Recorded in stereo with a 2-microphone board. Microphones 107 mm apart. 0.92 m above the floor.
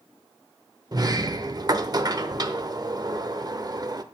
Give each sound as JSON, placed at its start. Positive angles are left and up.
{"t": 0.9, "sound": "a sliding door", "side_deg": -40, "distance_m": 0.7}